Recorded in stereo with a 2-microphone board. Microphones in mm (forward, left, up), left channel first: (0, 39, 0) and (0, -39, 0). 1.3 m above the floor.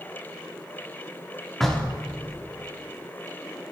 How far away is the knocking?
About 2 m.